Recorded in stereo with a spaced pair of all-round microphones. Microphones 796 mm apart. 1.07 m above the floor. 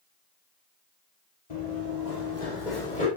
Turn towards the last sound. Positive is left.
turn(degrees=65)  # may be behind; listen again after turning